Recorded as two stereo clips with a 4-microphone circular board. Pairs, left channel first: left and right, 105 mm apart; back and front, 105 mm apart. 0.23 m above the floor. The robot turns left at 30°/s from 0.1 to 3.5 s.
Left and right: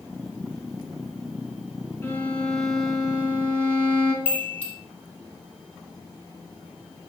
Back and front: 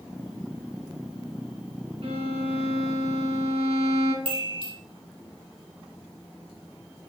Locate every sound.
2.0 s a violin: 20° left, 0.6 m; by 4.2 s 25° right, 0.6 m
4.2 s a chime: 15° left, 1.1 m